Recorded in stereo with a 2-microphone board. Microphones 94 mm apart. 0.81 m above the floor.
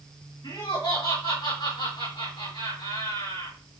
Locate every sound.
0.4 s laughter: 45° left (ahead or behind), 2 m